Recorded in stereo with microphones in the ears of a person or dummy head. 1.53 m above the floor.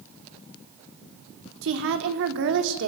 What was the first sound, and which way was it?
A woman speaking, 70° right (ahead or behind).